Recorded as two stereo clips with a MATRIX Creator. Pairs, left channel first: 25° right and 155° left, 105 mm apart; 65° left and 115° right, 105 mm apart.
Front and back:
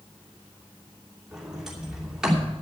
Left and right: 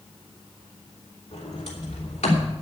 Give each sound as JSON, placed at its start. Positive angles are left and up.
{"t": 1.3, "sound": "a sliding door", "azimuth_deg": 70, "distance_m": 3.0}